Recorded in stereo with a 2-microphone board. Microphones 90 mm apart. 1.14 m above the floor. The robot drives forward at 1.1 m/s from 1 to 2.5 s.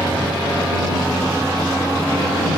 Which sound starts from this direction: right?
A vehicle, at 0.0 s.